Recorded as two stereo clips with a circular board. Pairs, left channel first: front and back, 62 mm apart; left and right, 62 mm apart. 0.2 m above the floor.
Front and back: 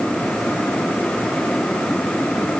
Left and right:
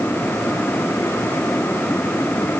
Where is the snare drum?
I don't hear a snare drum.